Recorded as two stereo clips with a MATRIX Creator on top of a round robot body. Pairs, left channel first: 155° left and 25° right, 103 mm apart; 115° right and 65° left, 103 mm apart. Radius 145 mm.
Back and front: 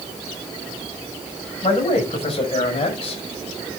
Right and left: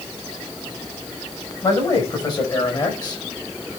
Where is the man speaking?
165° right, 6 m.